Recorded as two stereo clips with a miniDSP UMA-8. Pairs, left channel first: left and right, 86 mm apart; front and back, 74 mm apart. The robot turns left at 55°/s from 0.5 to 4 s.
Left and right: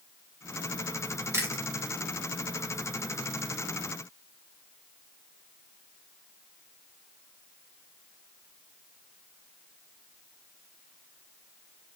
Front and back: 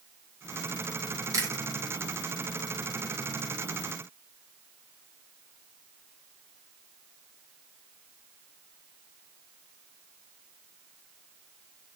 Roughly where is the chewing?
Behind right.